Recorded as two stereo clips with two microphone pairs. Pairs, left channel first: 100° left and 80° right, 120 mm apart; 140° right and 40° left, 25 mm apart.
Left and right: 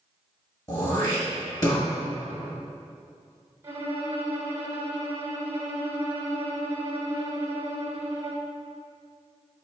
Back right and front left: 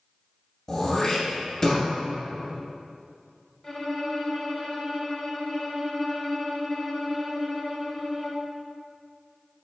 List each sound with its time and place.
0.7 s throat clearing: 150° left, 1.7 m
3.6 s a violin: 80° right, 1.2 m